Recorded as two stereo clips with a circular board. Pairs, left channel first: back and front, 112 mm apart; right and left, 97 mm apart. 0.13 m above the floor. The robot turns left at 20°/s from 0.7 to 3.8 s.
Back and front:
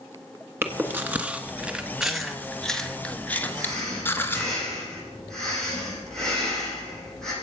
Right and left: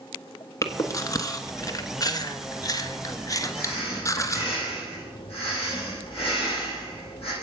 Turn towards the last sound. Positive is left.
turn(degrees=-95)